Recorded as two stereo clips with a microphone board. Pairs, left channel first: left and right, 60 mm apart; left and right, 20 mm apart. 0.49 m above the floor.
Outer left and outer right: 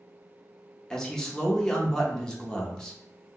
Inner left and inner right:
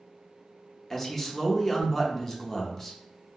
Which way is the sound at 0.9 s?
10° left (ahead or behind).